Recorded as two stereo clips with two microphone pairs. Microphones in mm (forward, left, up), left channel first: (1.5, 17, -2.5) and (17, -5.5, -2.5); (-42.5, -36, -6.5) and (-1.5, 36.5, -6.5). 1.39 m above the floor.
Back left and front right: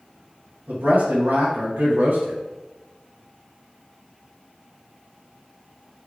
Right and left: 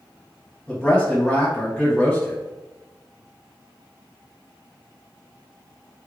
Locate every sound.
0.7 s a man speaking: 40° right, 1.6 m